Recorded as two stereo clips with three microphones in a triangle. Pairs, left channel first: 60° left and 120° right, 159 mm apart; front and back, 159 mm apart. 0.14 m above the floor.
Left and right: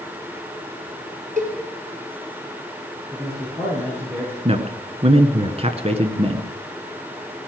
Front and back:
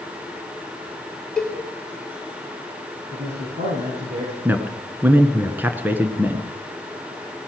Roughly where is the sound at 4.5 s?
Right.